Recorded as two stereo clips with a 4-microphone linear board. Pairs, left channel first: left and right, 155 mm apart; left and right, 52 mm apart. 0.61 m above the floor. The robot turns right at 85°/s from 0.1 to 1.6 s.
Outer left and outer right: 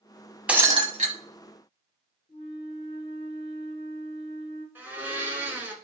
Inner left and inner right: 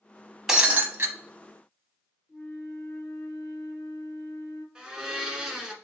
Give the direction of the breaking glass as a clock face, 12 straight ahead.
6 o'clock.